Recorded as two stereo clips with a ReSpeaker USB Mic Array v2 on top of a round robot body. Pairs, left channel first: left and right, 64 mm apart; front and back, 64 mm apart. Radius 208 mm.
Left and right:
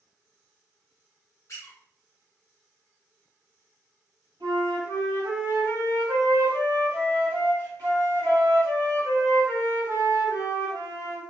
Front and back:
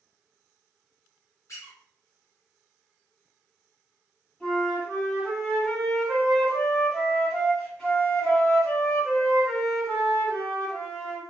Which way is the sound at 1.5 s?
45° left.